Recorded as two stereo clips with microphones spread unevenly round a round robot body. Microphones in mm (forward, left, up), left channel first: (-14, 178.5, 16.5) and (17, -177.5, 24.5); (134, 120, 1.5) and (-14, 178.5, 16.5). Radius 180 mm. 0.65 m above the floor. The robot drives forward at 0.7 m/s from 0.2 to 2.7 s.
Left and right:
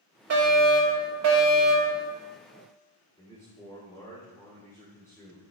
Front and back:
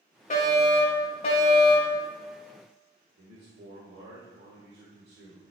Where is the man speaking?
175° left, 1.6 m.